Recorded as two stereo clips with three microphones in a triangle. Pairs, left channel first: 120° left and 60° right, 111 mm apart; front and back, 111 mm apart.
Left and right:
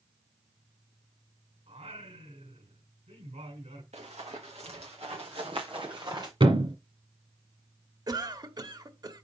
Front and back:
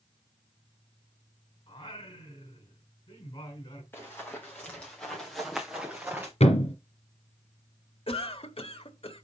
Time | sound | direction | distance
1.7 | singing | 50° right | 5 m
3.9 | running footsteps | 70° right | 5 m
6.4 | a thud | 20° right | 2.5 m
8.1 | a cough | 15° right | 1.3 m